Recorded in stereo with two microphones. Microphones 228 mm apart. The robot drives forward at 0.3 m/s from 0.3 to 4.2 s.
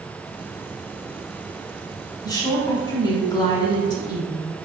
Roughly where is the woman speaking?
Centre.